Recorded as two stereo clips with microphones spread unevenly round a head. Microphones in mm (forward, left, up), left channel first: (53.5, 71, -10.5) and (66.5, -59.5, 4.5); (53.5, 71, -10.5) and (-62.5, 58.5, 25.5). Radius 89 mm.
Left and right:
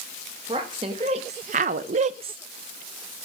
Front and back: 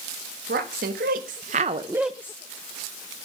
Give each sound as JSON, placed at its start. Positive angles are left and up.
{"t": 0.5, "sound": "a woman speaking", "azimuth_deg": -150, "distance_m": 1.7}